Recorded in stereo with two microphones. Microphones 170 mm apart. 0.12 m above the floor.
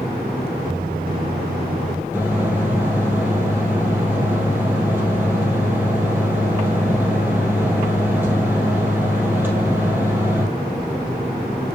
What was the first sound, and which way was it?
A microwave, 60° right (ahead or behind).